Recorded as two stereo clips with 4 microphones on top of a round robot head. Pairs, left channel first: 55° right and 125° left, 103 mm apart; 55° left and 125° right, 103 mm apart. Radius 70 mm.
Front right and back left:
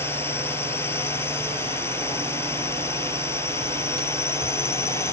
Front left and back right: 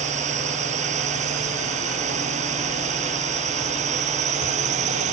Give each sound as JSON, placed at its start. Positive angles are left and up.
{"t": 0.0, "sound": "a drone", "azimuth_deg": -125}